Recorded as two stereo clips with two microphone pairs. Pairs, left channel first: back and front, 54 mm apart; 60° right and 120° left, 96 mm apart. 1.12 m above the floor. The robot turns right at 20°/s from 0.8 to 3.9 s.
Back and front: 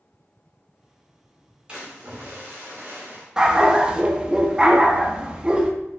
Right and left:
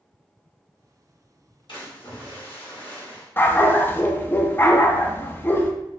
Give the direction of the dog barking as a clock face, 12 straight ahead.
2 o'clock.